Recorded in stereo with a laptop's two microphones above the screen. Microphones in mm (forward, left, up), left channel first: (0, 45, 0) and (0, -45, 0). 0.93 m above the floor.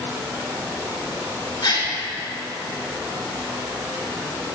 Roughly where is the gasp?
Left.